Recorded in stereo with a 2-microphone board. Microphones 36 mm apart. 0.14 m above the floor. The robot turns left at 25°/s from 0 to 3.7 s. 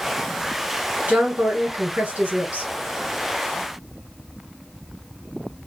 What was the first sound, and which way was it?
A woman speaking, 70° right.